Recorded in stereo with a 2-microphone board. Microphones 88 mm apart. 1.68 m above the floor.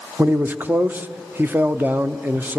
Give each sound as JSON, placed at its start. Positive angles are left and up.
{"t": 0.2, "sound": "a man speaking", "side_deg": -20, "distance_m": 0.8}